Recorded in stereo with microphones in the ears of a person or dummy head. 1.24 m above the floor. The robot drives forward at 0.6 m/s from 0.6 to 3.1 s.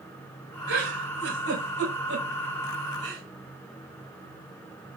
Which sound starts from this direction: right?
A giggle, at 0.7 s.